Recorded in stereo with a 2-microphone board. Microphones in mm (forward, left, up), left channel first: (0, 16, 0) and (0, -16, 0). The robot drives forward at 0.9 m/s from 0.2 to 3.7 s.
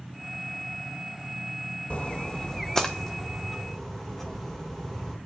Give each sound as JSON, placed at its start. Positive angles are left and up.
{"t": 1.9, "sound": "a splash", "side_deg": 40, "distance_m": 0.6}